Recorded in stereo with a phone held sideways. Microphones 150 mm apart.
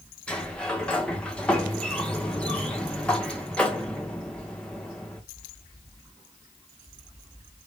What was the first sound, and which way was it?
A sliding door, 5° left (ahead or behind).